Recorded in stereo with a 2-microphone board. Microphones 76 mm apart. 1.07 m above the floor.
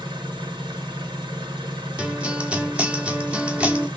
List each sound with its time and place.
0.0 s an engine running: 75° right (ahead or behind), 1.5 m
2.0 s a guitar: 15° right (ahead or behind), 0.9 m